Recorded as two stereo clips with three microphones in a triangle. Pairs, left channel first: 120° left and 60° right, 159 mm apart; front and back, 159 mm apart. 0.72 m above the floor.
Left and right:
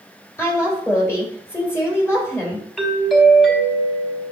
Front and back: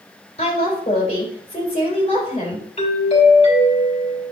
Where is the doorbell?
30° left, 2.5 m.